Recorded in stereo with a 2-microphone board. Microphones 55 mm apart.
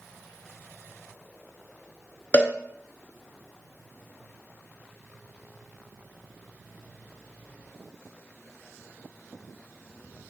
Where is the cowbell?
35° left (ahead or behind), 0.6 m.